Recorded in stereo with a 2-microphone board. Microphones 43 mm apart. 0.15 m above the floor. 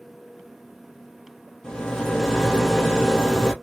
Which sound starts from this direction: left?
A rattle, at 1.6 s.